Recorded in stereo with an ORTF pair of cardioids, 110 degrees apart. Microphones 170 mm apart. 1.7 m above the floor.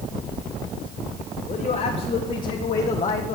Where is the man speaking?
50° left, 3.5 m; by 3.4 s 40° left, 1.4 m.